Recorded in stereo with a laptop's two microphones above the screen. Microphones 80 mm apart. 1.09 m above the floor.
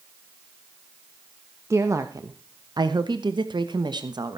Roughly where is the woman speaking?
Right.